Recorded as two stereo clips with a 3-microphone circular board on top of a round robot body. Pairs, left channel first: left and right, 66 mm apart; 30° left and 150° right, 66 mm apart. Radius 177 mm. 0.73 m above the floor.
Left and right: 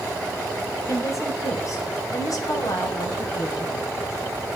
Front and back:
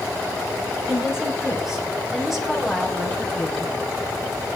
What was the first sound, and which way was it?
A woman speaking, 135° left.